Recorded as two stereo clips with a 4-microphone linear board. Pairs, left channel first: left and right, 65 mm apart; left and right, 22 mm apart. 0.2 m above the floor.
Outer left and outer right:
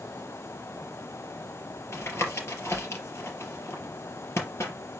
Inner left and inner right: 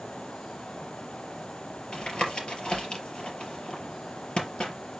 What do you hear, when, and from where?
1.9 s tapping: 45° left (ahead or behind), 4 m